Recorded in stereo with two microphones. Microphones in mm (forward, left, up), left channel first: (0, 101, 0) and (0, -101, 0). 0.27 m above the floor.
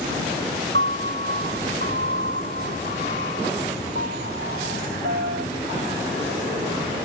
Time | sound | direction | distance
0.7 | a piano | 65° right (ahead or behind) | ?